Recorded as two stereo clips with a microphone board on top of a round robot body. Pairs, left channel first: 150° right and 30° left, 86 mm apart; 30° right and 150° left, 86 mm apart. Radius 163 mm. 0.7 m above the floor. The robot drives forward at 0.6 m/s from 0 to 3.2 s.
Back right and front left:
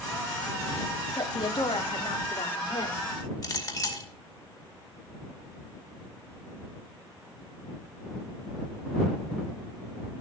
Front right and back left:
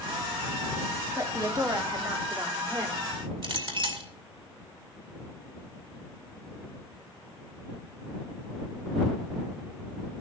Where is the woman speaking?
160° right, 2.5 m; by 3.1 s 165° right, 3.5 m.